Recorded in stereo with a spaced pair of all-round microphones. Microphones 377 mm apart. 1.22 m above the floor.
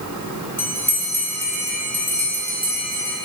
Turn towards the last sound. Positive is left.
turn(degrees=5)  # may be behind; listen again after turning